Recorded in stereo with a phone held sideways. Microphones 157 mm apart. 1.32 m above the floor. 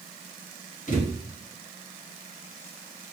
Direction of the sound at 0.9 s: 50° left (ahead or behind).